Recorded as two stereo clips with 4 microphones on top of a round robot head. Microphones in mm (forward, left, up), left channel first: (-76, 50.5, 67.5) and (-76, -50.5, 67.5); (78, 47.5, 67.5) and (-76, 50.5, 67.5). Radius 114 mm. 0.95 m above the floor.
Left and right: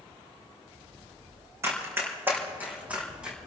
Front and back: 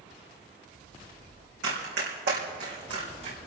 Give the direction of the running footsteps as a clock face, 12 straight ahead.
5 o'clock.